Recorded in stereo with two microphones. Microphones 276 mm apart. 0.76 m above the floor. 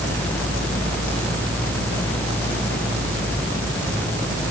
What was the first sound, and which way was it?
Only background noise.